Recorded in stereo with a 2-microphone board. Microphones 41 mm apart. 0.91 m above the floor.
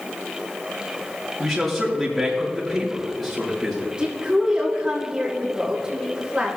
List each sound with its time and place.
1.4 s a man speaking: 5° left (ahead or behind), 3.5 m
4.0 s a woman speaking: 20° right (ahead or behind), 1.9 m